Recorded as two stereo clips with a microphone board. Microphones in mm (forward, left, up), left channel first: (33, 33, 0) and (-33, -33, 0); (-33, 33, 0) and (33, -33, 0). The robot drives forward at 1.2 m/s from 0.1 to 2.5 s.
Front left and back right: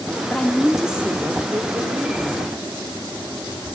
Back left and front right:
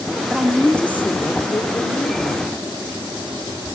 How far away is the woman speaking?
About 1.3 m.